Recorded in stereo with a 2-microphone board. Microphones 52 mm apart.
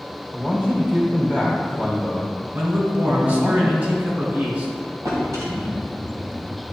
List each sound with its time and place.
0.3 s a man speaking: 20° right (ahead or behind), 2 m
2.5 s a man speaking: 35° right (ahead or behind), 2.5 m
5.0 s a drawer: 80° right, 1.9 m